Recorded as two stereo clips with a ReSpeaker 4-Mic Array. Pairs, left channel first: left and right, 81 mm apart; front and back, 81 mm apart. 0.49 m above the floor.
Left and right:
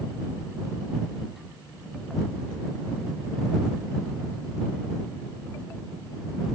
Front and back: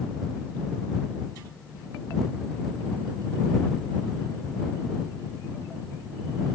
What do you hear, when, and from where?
Only background noise.